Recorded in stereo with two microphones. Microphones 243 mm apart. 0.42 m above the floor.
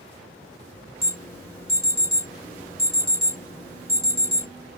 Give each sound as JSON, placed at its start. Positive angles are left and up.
{"t": 1.0, "sound": "an alarm", "side_deg": 25, "distance_m": 2.0}